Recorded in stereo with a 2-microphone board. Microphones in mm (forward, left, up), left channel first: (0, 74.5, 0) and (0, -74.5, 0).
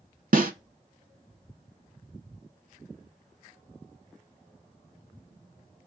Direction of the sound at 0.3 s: 70° right (ahead or behind).